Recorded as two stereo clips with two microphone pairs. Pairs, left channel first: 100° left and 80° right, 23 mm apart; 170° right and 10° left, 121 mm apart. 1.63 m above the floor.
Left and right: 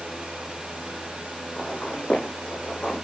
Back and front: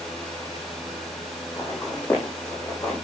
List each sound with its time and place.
1.6 s footsteps: 120° left, 5.5 m; by 3.0 s 125° left, 5 m